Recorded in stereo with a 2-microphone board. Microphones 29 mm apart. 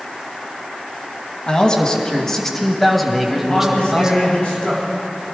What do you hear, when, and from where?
1.5 s a man speaking: 35° left (ahead or behind), 2 m; by 4.2 s 25° right (ahead or behind), 2.0 m
3.4 s a man speaking: 45° left (ahead or behind), 5.5 m